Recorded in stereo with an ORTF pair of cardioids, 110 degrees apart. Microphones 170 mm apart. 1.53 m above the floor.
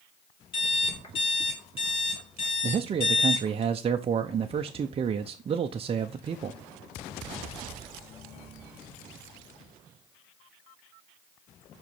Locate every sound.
0.5 s an alarm clock: 35° left, 2.5 m
2.6 s a man speaking: 35° right, 0.6 m